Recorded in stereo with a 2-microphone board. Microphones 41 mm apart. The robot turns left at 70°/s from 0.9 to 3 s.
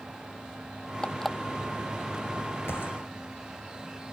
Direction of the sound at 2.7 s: 80° left.